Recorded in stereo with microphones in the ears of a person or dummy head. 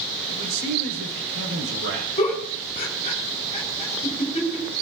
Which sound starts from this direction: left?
A giggle, at 2.2 s.